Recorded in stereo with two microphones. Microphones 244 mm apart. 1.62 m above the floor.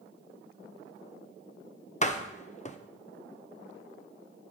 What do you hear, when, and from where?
2.0 s a door slam: 30° left (ahead or behind), 0.6 m